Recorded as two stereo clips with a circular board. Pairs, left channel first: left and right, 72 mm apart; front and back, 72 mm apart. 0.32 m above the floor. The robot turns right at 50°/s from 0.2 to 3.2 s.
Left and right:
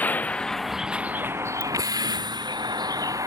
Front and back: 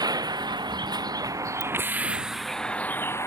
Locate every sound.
0.0 s a vehicle: 160° left; by 3.3 s 50° right
1.6 s a ringtone: 165° left